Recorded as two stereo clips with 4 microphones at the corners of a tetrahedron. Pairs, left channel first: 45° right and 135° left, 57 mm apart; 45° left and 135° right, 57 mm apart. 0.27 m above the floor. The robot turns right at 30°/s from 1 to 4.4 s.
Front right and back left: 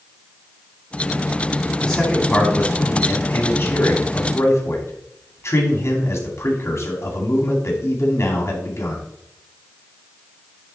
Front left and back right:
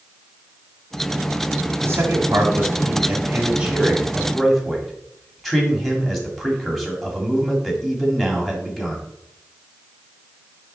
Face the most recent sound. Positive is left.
turn(degrees=-40)